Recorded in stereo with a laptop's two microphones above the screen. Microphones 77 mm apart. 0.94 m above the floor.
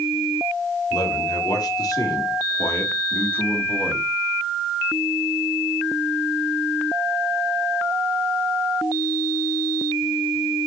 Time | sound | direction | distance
0.9 | a man speaking | 75° left (ahead or behind) | 3.5 m